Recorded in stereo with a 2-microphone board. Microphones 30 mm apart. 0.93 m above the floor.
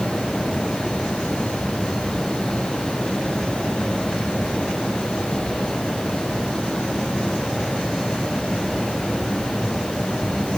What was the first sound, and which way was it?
Only background noise.